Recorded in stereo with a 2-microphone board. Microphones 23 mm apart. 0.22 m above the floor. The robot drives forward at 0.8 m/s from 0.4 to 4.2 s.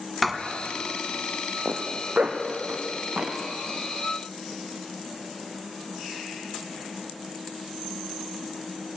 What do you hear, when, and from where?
0.2 s writing: centre (ahead or behind), 1.8 m
1.6 s a zipper: 65° right (ahead or behind), 3.5 m; by 3.4 s 85° right, 3 m